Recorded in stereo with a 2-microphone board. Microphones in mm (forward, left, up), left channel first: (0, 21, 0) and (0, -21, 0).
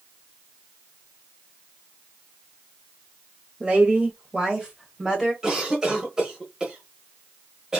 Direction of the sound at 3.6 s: 25° right (ahead or behind).